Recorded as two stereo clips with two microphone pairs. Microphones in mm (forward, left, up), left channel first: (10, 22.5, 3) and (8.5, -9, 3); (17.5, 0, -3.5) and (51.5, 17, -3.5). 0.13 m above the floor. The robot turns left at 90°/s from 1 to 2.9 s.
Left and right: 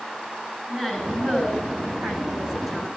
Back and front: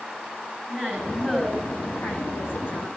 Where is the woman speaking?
20° right, 7 m; by 2.9 s 170° left, 7 m.